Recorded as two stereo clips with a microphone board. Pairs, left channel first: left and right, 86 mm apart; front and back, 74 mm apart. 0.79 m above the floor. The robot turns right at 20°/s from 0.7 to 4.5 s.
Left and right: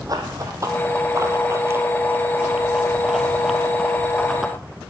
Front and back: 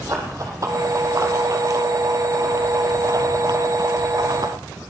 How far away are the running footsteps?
About 2.5 m.